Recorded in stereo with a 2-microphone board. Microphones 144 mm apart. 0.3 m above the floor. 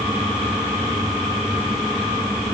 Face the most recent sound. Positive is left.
No sound to turn to.